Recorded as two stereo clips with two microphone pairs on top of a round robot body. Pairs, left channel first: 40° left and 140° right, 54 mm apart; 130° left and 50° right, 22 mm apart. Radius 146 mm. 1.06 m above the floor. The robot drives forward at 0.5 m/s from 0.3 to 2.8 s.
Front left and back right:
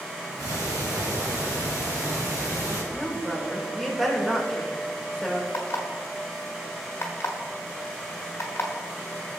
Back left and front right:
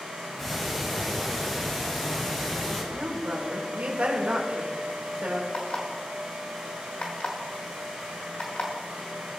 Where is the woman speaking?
45° right, 2.5 m.